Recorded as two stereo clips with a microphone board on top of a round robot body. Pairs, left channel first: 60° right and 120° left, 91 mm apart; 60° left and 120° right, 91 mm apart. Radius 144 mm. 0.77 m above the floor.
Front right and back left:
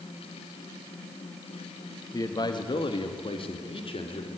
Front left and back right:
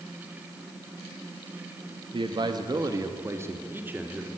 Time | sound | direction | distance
2.1 | a man speaking | 105° right | 1.5 m